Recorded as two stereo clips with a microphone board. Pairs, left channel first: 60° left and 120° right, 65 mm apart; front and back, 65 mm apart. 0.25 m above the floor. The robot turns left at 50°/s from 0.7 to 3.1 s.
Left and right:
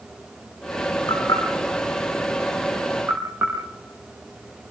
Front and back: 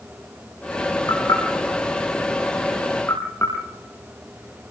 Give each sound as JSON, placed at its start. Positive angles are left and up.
{"t": 1.1, "sound": "knocking", "azimuth_deg": 45, "distance_m": 6.5}